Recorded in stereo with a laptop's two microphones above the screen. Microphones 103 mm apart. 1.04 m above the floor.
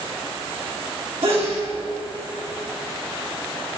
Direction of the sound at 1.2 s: 65° right (ahead or behind).